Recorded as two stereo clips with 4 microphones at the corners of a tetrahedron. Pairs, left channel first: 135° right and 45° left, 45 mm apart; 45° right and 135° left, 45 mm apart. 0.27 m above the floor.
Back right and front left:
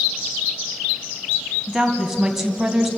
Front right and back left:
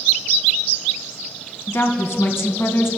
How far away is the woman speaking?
About 2.5 m.